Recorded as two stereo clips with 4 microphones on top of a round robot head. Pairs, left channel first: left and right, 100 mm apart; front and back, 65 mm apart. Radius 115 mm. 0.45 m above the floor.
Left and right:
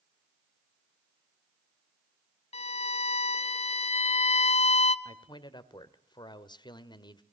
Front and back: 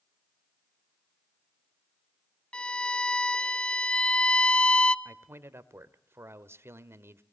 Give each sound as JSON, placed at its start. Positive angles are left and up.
{"t": 2.5, "sound": "a violin", "azimuth_deg": 75, "distance_m": 0.7}
{"t": 5.0, "sound": "a man speaking", "azimuth_deg": 130, "distance_m": 1.7}